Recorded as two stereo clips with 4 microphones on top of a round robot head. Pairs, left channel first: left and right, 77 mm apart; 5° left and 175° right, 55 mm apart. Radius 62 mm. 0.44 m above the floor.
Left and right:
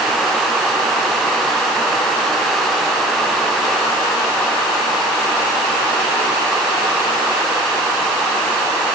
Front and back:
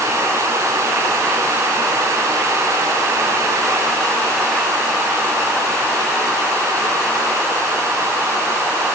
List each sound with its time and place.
Only background noise.